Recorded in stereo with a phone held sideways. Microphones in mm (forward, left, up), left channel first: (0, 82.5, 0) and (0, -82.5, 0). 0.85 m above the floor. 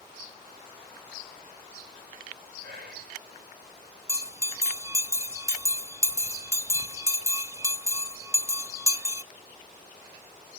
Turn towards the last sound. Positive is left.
turn(degrees=-20)  # may be behind; listen again after turning